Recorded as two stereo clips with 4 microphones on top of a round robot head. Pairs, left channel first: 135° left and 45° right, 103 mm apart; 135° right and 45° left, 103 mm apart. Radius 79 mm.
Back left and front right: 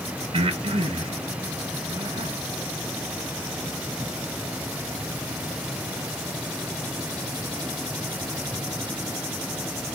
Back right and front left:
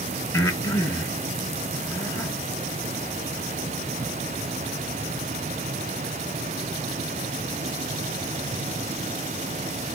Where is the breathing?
75° right, 1.3 m.